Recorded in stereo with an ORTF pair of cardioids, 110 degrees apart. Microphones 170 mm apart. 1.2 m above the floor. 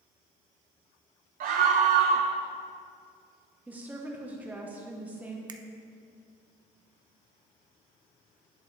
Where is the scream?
60° right, 0.8 m.